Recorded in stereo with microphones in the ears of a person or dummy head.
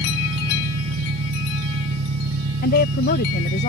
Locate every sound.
0.0 s an engine running: 70° right (ahead or behind)
2.6 s a woman speaking: 45° left (ahead or behind)